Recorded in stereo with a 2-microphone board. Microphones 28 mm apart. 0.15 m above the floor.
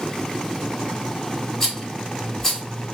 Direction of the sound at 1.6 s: 15° left (ahead or behind).